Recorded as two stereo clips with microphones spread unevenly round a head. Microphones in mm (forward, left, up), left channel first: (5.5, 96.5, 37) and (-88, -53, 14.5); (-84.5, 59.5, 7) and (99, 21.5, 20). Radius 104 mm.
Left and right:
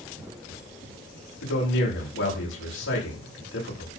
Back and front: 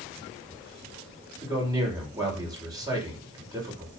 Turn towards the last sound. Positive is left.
turn(degrees=60)